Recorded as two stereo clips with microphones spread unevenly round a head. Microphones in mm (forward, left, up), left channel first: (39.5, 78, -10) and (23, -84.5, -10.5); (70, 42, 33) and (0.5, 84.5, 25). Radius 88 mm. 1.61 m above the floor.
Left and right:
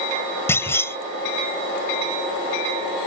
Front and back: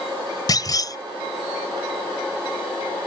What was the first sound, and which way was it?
A clunk, 10° left.